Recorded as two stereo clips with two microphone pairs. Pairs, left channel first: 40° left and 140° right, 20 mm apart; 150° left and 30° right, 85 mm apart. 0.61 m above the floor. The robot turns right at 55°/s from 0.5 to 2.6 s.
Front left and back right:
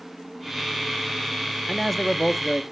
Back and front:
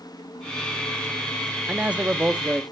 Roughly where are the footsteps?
No footsteps in this recording.